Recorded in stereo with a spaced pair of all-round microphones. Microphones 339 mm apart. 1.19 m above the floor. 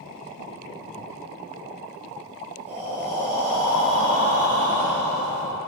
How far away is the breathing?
About 1.3 m.